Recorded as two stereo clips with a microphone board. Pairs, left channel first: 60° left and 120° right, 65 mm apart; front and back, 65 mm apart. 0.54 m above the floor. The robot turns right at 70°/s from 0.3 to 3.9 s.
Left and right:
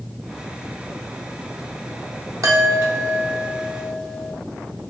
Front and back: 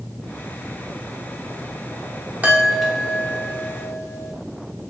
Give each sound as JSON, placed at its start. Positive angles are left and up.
{"t": 2.4, "sound": "a chime", "azimuth_deg": -120, "distance_m": 0.6}